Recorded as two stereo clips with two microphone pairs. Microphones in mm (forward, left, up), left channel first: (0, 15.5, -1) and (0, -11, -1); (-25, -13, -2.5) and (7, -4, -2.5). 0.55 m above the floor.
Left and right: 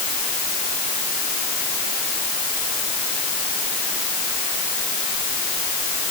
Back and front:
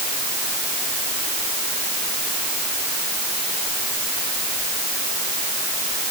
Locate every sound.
Only background noise.